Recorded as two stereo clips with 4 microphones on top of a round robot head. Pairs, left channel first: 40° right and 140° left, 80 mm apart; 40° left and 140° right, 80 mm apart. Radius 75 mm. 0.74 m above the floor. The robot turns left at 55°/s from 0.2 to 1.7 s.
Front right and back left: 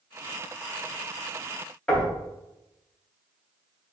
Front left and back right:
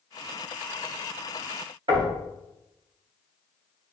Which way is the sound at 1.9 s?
120° right.